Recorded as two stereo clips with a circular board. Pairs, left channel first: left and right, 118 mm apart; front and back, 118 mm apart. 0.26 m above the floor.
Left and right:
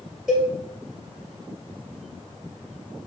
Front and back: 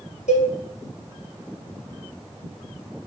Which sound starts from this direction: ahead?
A cowbell, at 0.3 s.